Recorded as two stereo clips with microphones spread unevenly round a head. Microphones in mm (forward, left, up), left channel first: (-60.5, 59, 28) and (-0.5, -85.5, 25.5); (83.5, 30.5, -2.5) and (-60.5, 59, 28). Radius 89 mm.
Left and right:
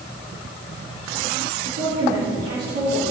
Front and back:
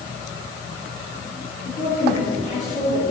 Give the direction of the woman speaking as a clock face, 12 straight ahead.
2 o'clock.